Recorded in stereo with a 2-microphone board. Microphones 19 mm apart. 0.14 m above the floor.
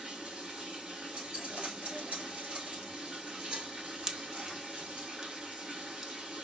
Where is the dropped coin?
50° right (ahead or behind), 1.3 m.